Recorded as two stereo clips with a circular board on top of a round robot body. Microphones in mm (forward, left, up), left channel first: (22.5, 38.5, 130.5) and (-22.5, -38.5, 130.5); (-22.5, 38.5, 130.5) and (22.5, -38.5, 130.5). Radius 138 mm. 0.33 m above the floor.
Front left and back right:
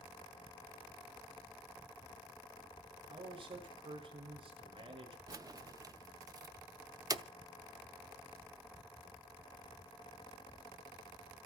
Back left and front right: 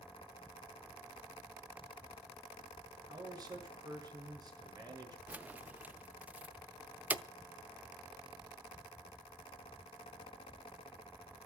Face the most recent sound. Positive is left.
turn(degrees=-125)